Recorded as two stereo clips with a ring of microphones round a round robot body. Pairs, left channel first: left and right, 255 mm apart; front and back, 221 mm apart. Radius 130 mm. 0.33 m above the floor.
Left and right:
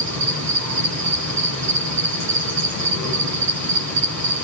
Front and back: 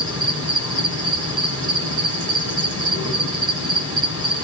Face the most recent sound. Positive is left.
turn(degrees=-105)